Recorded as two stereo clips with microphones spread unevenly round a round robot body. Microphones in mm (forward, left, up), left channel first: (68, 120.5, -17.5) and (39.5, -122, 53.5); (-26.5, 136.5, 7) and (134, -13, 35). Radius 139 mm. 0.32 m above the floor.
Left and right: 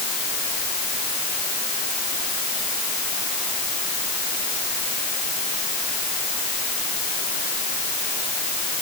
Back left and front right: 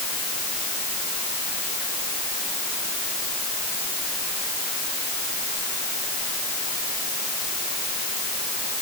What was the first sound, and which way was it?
Only background noise.